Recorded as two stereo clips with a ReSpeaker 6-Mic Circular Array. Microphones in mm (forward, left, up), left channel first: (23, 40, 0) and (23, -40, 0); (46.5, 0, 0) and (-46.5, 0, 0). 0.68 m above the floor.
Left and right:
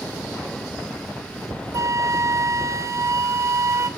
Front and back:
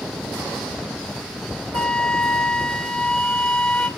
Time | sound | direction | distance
1.7 | a flute | 75° right | 0.7 m